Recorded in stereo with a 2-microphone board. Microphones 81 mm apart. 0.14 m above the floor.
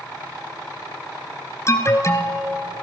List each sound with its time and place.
1.7 s an alarm: 35° left (ahead or behind), 1.5 m